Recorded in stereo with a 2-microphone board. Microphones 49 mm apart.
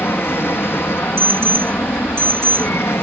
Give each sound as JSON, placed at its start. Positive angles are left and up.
{"t": 0.0, "sound": "an aircraft", "side_deg": 55}
{"t": 1.2, "sound": "an alarm", "side_deg": -60}